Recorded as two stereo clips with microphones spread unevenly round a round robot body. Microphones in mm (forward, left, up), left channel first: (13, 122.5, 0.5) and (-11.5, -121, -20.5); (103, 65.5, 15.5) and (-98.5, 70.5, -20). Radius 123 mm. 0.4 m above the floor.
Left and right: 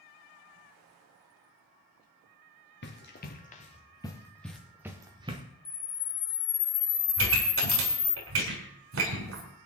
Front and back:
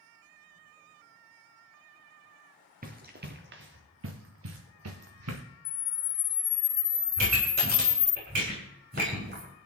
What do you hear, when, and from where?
2.8 s running footsteps: 130° left, 2 m; by 5.4 s 165° right, 2.0 m
5.7 s a camera shutter: 25° left, 2 m
7.2 s a pop: 130° right, 4.5 m